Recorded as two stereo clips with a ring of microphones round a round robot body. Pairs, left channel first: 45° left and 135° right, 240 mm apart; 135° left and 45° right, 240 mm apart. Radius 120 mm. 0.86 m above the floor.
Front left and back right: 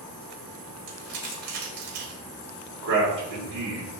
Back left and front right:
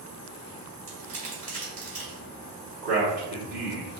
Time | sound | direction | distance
0.9 | crumpling | 105° right | 1.7 m
2.8 | a man speaking | 90° right | 1.7 m